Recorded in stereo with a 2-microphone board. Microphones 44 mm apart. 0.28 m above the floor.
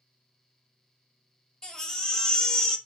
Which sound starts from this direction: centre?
A baby crying, at 1.6 s.